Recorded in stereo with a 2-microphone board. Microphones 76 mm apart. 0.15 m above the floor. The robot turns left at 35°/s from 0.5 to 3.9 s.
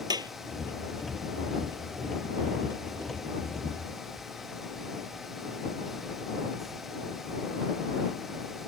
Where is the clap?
65° right (ahead or behind).